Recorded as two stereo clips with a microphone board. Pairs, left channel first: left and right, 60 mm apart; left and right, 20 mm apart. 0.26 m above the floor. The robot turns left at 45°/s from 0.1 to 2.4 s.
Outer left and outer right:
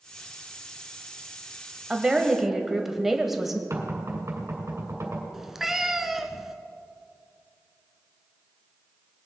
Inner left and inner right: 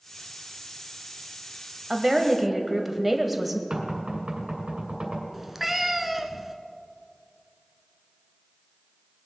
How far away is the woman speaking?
About 1.2 m.